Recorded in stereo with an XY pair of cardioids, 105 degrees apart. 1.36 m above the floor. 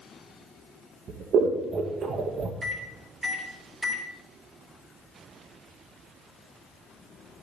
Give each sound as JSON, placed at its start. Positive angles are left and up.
{"t": 1.1, "sound": "scissors", "azimuth_deg": -60, "distance_m": 1.7}
{"t": 2.6, "sound": "a microwave", "azimuth_deg": -25, "distance_m": 3.0}